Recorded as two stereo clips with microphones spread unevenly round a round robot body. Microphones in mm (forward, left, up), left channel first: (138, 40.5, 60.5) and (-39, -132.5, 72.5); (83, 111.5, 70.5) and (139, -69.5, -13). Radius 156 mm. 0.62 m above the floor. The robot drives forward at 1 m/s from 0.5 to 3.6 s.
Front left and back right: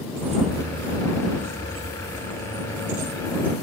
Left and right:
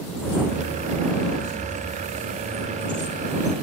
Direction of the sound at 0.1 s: 155° left.